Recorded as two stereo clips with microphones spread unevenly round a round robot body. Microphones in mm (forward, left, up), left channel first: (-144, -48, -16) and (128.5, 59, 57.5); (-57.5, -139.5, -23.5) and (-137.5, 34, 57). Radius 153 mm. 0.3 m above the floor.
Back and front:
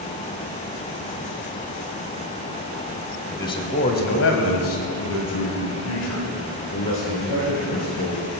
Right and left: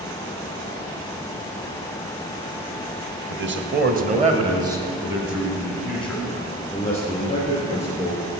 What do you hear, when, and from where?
3.3 s a man speaking: 135° left, 1.6 m; by 8.2 s 130° right, 5.5 m